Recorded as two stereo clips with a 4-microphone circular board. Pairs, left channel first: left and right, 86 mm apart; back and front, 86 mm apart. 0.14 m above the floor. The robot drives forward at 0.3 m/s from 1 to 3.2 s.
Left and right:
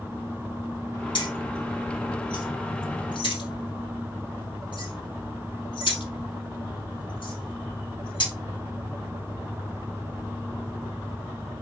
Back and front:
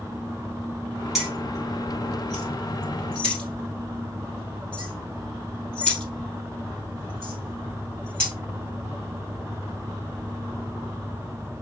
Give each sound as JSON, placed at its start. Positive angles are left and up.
{"t": 1.1, "sound": "keys jangling", "azimuth_deg": 85, "distance_m": 2.0}